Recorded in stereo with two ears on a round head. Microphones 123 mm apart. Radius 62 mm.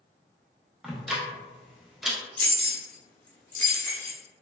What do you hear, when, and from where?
0.8 s ticking: 5° right (ahead or behind), 0.5 m
2.4 s keys jangling: 10° left (ahead or behind), 0.6 m